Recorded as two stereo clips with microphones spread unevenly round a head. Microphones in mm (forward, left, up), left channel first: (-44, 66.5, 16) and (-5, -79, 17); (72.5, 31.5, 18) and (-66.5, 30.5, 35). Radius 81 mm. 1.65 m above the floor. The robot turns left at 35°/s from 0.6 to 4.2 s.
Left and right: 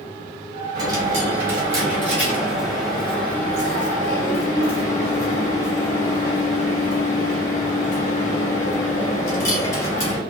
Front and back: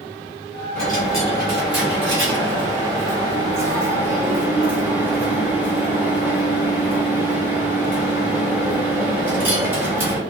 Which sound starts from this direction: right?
A dropped coin, at 0.8 s.